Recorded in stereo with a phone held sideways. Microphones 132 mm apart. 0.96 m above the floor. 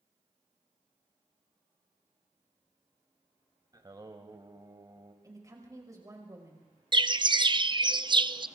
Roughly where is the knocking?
No knocking in this recording.